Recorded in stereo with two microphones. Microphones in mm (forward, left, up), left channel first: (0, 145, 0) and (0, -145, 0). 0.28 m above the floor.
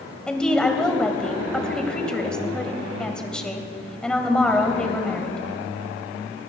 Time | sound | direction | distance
0.3 | a woman speaking | 5° left (ahead or behind) | 1.5 m